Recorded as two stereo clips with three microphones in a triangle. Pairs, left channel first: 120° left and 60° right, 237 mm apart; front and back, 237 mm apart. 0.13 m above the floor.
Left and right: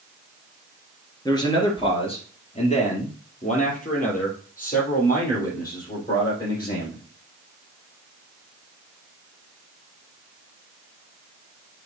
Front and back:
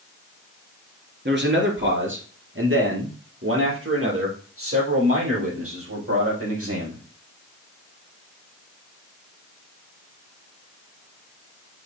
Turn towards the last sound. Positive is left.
turn(degrees=170)